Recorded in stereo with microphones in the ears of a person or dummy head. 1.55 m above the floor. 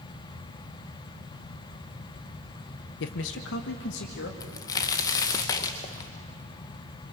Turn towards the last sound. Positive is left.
turn(degrees=20)  # may be behind; listen again after turning